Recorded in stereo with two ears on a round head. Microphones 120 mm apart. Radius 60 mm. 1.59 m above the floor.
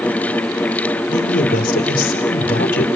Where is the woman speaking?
75° left (ahead or behind), 4.5 m.